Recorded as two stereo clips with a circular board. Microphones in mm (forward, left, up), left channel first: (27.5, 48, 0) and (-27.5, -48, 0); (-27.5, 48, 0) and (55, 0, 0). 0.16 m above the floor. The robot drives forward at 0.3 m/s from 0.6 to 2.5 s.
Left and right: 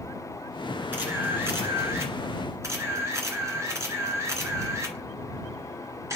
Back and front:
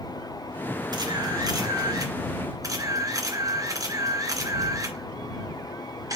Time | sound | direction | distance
0.9 | a camera shutter | 50° right | 2.5 m